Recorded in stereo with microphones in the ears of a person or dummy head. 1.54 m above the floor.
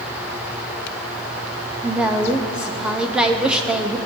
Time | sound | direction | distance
1.8 | a woman speaking | 5° right (ahead or behind) | 0.6 m